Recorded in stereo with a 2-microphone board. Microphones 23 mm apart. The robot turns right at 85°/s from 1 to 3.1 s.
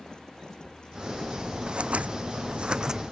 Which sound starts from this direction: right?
Scissors, at 1.7 s.